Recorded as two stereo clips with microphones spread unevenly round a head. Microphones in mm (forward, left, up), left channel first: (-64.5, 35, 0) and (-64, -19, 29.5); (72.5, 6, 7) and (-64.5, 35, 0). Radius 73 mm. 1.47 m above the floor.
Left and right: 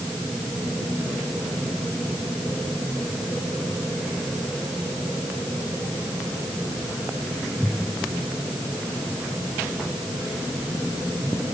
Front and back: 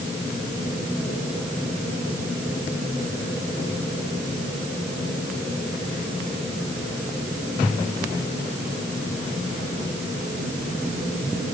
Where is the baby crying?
No baby crying in this recording.